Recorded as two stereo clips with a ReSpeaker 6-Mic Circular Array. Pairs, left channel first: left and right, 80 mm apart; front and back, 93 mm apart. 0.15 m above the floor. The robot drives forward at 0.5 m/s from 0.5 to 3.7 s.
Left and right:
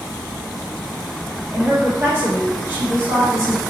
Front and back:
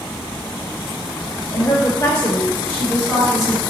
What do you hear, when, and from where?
1.5 s a woman speaking: 50° right, 2.5 m; by 3.6 s 90° right, 2.0 m